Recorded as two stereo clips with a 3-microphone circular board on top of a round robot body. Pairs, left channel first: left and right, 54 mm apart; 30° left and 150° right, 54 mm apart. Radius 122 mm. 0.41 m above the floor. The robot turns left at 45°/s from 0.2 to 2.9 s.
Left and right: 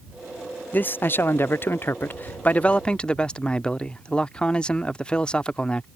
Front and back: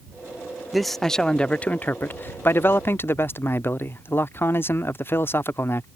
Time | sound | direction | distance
0.7 | a man speaking | 125° left | ?